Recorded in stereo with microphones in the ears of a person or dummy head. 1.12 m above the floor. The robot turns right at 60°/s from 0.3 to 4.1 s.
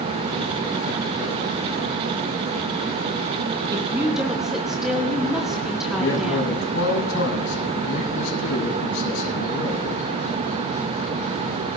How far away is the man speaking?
About 7.5 m.